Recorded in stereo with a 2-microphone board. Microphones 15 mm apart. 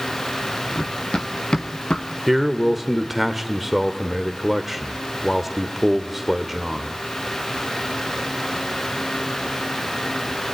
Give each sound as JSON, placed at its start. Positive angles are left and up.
{"t": 0.8, "sound": "running footsteps", "side_deg": 85, "distance_m": 2.5}
{"t": 2.3, "sound": "a man speaking", "side_deg": -10, "distance_m": 1.4}